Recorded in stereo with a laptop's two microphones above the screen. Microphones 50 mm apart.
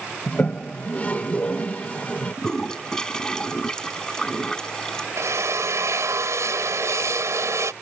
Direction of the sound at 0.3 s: 30° left (ahead or behind).